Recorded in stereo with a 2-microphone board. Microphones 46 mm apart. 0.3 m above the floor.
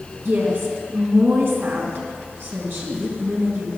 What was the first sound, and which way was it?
A woman speaking, 60° right (ahead or behind).